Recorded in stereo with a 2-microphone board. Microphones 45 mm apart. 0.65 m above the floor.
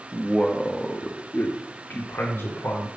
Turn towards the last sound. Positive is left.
turn(degrees=60)  # may be behind; listen again after turning